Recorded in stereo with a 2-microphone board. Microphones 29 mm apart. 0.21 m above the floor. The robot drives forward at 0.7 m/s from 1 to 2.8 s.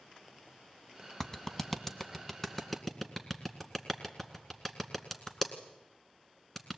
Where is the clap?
20° left (ahead or behind), 1.2 m; by 6.8 s 10° left (ahead or behind), 2.0 m.